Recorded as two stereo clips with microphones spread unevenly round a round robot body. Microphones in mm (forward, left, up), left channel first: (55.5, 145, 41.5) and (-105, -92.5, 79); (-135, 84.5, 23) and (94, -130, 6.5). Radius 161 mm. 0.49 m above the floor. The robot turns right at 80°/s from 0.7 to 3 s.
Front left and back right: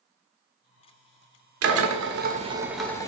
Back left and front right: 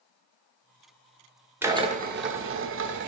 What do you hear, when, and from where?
1.6 s a drill: 120° right, 1.3 m; by 3.1 s 10° right, 1.3 m